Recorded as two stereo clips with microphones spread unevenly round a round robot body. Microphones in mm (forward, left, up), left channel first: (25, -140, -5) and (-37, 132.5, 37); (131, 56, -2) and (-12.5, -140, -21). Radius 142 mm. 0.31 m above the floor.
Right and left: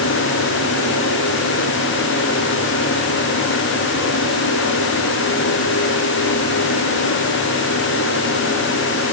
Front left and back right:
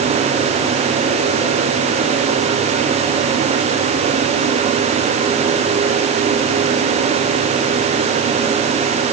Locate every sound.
Only background noise.